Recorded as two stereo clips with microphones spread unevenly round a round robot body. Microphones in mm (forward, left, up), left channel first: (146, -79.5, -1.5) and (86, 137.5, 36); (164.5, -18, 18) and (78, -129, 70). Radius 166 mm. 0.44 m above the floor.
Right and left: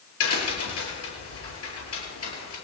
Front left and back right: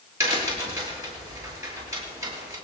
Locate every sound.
0.2 s a crack: 60° right, 8 m